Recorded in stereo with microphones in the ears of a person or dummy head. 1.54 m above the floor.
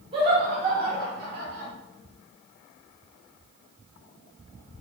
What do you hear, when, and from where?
0.1 s laughter: 35° right (ahead or behind), 2.0 m; by 1.7 s 60° right (ahead or behind), 1.9 m